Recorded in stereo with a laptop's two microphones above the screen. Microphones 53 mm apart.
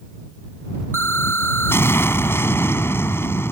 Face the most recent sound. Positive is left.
turn(degrees=50)  # may be behind; listen again after turning